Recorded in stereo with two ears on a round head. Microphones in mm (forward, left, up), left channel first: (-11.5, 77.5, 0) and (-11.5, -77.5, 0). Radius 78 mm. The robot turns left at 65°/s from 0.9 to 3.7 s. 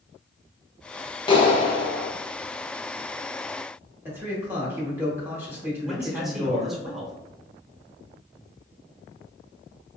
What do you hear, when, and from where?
1.3 s a clap: 130° left, 0.6 m; by 2.1 s 75° left, 0.6 m
4.0 s a man speaking: 15° right (ahead or behind), 1.0 m
5.8 s a man speaking: centre (ahead or behind), 0.7 m